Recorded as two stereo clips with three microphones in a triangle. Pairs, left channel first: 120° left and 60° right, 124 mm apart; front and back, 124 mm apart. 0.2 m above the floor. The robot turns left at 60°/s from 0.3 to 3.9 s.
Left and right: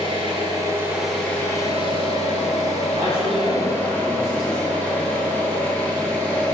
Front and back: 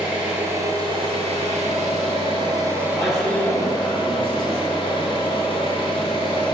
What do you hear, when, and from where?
0.0 s an engine running: 100° right, 0.7 m; by 6.5 s 40° left, 0.7 m
3.0 s a man speaking: 90° right, 1.5 m; by 4.6 s 150° right, 1.5 m